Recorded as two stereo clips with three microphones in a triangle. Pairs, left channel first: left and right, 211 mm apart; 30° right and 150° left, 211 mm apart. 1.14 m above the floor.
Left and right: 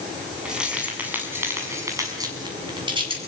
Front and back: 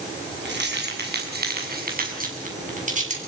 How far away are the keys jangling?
About 7.5 m.